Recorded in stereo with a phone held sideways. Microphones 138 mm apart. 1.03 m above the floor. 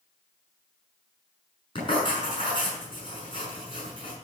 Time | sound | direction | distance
1.8 | writing | 40° left (ahead or behind) | 6 m